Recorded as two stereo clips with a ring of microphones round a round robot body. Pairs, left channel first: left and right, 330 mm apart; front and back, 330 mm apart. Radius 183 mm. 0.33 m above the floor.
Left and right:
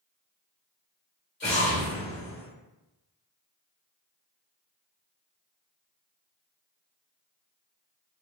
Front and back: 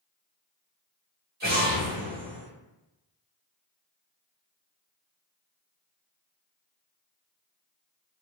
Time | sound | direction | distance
1.4 | an explosion | 130° left | 1.8 m